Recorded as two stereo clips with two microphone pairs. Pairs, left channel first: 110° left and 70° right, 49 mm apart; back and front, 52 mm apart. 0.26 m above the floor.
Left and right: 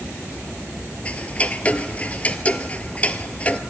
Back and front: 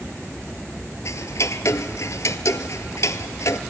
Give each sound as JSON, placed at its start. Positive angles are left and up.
{"t": 1.1, "sound": "ticking", "azimuth_deg": 175, "distance_m": 0.8}